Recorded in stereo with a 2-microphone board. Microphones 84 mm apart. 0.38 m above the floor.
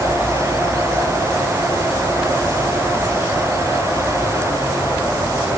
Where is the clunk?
No clunk in this recording.